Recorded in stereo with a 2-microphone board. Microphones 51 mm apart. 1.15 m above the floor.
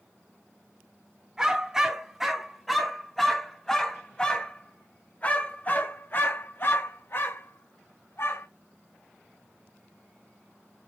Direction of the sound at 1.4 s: 15° right (ahead or behind).